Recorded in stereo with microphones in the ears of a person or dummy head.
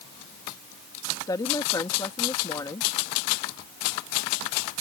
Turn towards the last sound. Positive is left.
turn(degrees=15)  # may be behind; listen again after turning